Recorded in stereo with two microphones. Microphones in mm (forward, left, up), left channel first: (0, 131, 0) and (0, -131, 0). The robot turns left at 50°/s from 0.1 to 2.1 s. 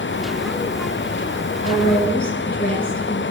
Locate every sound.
1.6 s a woman speaking: 20° left (ahead or behind), 2 m; by 3.2 s 35° left (ahead or behind), 2 m